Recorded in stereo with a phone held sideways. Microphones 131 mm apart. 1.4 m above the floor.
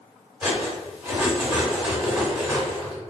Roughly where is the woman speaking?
I don't hear a woman speaking.